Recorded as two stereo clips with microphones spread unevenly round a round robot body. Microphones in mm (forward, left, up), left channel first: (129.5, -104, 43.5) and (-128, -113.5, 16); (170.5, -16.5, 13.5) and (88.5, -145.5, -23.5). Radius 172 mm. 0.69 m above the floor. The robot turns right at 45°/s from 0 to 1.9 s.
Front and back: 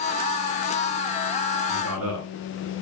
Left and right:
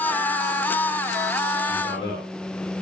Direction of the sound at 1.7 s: 125° left.